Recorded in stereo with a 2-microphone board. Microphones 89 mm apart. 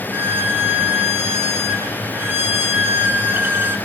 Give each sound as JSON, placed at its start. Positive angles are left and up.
{"t": 0.1, "sound": "a violin", "side_deg": -25, "distance_m": 0.9}